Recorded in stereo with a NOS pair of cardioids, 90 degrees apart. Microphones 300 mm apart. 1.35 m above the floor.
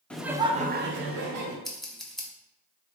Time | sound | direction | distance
0.1 | laughter | 5° left | 0.5 m
1.6 | scissors | straight ahead | 0.9 m